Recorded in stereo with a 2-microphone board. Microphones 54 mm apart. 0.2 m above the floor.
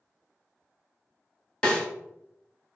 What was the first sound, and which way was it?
A snare drum, 20° left (ahead or behind).